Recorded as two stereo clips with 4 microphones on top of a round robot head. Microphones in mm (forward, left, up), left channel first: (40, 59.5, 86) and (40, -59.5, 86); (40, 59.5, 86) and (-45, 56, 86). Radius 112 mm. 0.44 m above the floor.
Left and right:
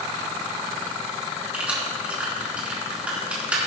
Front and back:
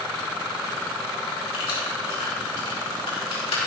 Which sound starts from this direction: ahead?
Keys jangling, at 1.5 s.